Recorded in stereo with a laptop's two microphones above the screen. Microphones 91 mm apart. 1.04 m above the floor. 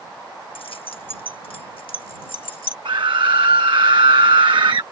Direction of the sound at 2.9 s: 60° right (ahead or behind).